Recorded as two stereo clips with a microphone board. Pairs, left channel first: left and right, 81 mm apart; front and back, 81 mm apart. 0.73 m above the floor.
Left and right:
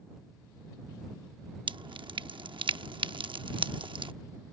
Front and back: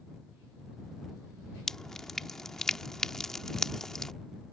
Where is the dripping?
85° right.